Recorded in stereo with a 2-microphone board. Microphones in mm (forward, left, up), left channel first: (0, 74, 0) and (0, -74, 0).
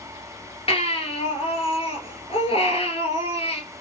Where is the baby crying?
40° left (ahead or behind), 1.4 m.